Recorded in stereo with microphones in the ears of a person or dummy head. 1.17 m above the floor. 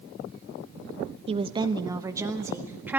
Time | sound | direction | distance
1.3 | a woman speaking | 30° right (ahead or behind) | 0.7 m